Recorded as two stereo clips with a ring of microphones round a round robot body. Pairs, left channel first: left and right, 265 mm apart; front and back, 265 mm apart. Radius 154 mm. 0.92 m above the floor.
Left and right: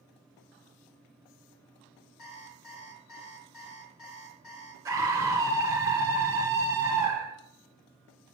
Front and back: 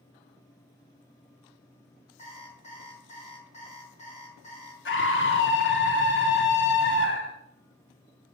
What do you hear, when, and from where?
2.2 s an alarm clock: 65° left, 4 m
4.8 s a scream: 15° right, 1.1 m